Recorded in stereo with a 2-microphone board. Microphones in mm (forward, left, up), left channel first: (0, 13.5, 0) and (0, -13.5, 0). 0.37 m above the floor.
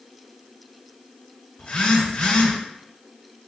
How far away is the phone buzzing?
About 1.0 m.